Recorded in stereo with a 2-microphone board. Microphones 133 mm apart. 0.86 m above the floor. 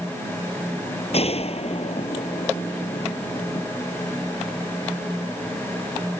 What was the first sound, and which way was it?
A gunshot, 50° left (ahead or behind).